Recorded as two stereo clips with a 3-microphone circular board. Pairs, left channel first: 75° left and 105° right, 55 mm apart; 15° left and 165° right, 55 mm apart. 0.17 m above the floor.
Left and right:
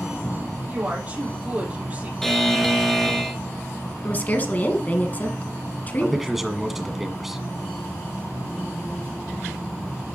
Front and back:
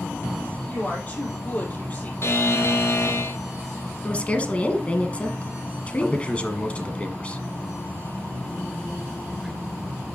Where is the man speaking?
25° right, 1.4 m.